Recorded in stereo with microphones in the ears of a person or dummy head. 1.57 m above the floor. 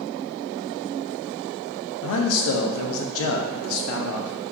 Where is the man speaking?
75° left (ahead or behind), 0.6 m.